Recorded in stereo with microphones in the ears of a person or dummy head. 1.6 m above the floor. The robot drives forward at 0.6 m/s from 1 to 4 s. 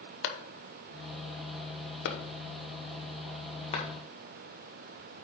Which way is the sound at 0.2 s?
65° left (ahead or behind).